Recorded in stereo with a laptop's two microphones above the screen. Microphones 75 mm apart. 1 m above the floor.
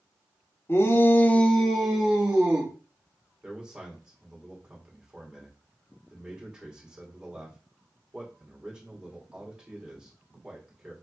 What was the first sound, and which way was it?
A shout, 30° left (ahead or behind).